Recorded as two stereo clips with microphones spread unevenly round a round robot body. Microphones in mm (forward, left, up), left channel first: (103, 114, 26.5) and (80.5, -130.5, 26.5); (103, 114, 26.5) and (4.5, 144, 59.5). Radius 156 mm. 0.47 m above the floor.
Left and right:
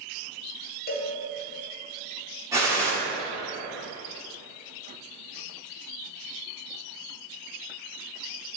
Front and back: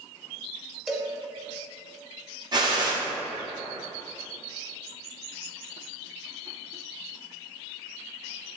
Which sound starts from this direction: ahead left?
A cowbell, at 0.9 s.